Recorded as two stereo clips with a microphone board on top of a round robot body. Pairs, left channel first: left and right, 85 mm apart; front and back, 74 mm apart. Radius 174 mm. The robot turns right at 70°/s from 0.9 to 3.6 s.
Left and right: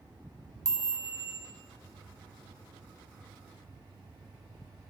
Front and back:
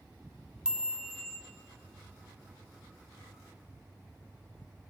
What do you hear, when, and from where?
0.7 s a chime: 105° right, 1.6 m; by 1.4 s 70° right, 1.6 m